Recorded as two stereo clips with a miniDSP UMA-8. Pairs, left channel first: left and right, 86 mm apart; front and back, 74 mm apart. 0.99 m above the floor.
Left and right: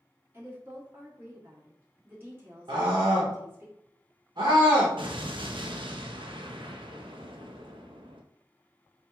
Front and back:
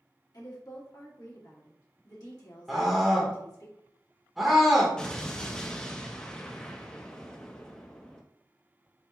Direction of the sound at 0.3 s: 30° right.